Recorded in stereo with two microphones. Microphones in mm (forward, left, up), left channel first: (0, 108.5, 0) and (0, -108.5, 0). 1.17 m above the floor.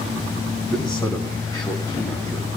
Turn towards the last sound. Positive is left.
turn(degrees=20)  # may be behind; listen again after turning